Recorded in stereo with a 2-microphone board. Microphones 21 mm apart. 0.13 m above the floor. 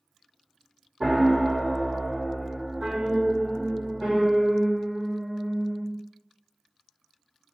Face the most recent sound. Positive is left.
turn(degrees=-40)  # may be behind; listen again after turning